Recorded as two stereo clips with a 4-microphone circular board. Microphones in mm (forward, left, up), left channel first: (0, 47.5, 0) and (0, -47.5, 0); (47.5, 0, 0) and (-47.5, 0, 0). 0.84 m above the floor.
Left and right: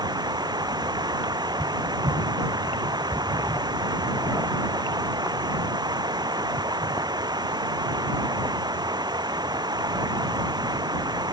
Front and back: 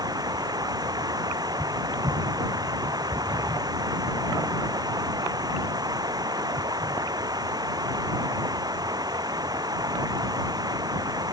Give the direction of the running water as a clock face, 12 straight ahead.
4 o'clock.